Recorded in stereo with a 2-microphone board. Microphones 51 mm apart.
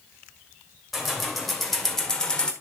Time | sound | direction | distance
0.9 | keys jangling | 5° right (ahead or behind) | 2 m